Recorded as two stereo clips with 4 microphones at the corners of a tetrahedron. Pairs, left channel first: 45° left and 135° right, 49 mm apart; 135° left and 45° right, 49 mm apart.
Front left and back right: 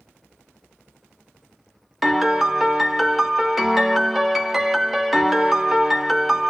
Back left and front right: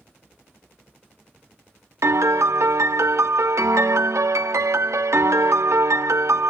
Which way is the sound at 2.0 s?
45° right.